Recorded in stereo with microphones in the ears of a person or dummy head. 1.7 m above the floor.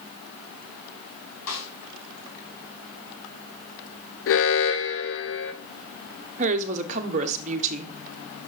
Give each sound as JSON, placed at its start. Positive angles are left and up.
{"t": 1.5, "sound": "a snare drum", "side_deg": 75, "distance_m": 6.0}
{"t": 4.3, "sound": "an alarm", "side_deg": 65, "distance_m": 0.9}
{"t": 6.4, "sound": "a woman speaking", "side_deg": -40, "distance_m": 1.2}